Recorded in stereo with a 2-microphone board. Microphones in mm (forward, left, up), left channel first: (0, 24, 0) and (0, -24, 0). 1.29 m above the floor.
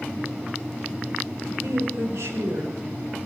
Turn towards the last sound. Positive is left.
turn(degrees=-75)  # may be behind; listen again after turning